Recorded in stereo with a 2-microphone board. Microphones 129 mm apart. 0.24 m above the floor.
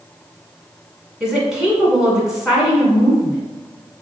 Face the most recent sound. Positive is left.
turn(degrees=-5)  # may be behind; listen again after turning